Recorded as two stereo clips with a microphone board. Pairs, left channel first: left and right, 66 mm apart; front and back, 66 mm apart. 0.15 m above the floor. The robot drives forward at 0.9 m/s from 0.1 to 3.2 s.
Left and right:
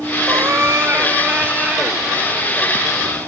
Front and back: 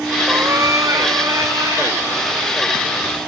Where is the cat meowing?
130° right, 0.9 m; by 2.7 s 165° right, 3 m.